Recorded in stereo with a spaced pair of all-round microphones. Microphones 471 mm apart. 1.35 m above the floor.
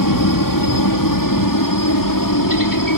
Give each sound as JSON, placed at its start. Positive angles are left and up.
{"t": 0.0, "sound": "a helicopter", "side_deg": 45}